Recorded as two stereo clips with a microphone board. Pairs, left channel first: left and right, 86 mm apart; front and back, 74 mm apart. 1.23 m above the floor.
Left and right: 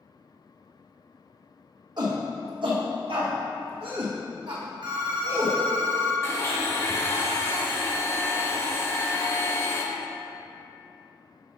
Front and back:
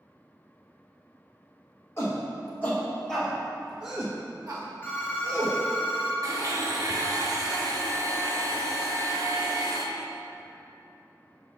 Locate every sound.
2.0 s a shout: 55° right, 1.4 m; by 5.6 s 140° right, 1.6 m
4.8 s a phone ringing: 65° right, 1.3 m
6.2 s a blender: 145° left, 1.1 m